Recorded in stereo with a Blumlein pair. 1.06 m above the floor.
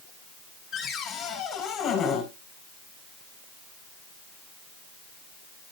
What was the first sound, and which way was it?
A cupboard door, 20° left.